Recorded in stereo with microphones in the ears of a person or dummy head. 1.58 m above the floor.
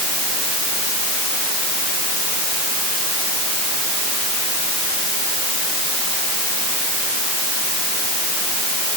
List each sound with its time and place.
Only background noise.